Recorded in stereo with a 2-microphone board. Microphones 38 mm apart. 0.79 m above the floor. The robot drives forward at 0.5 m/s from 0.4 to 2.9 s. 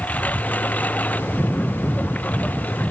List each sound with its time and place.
0.0 s a lawn mower: 45° left (ahead or behind)